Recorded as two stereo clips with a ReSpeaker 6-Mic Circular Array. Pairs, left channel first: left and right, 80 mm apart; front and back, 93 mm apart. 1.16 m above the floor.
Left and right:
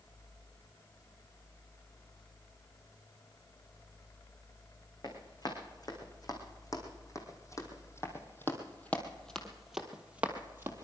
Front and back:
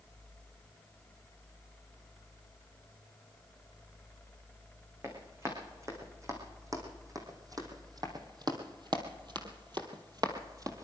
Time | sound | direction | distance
5.0 | running footsteps | 120° left | 4.5 m